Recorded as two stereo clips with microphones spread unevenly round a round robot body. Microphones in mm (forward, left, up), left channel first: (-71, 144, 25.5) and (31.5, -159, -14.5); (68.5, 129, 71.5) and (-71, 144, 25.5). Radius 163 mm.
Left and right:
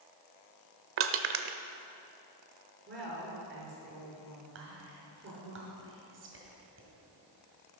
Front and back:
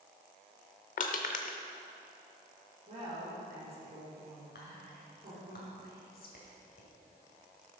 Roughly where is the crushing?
Ahead right.